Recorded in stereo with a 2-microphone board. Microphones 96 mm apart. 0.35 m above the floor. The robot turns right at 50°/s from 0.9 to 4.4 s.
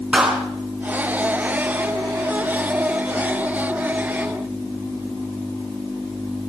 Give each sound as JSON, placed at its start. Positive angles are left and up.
{"t": 0.1, "sound": "a clap", "side_deg": -10, "distance_m": 3.5}